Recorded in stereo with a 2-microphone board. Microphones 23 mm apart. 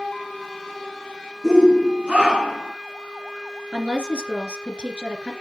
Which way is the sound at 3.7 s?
50° right (ahead or behind).